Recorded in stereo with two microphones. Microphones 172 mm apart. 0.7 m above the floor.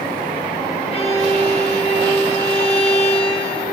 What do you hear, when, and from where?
0.9 s a violin: 35° left (ahead or behind), 0.6 m